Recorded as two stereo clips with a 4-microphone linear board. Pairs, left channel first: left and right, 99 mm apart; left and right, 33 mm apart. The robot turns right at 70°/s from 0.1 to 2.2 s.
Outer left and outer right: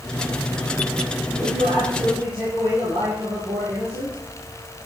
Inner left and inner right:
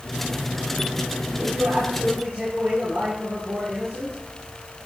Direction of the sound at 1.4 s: 115° right.